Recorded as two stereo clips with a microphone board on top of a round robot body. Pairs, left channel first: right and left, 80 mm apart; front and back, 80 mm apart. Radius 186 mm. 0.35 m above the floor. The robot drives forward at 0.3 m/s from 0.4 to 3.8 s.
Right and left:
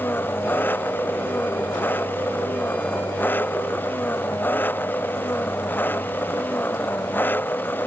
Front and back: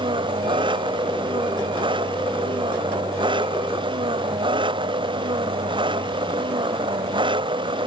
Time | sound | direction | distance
0.0 | an engine running | 155° right | ?